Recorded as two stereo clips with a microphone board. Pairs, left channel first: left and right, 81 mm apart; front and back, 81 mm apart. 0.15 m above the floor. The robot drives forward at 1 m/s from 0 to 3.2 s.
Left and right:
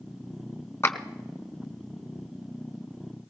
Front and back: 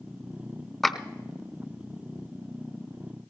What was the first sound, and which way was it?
A clap, 80° left.